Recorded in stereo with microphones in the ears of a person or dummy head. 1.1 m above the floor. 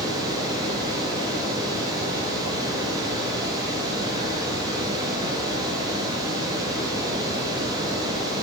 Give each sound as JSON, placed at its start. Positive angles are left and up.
{"t": 0.0, "sound": "running water", "side_deg": -20, "distance_m": 1.2}